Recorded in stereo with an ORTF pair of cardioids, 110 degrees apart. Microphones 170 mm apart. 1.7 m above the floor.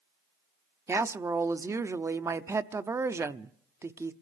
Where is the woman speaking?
15° right, 0.7 m.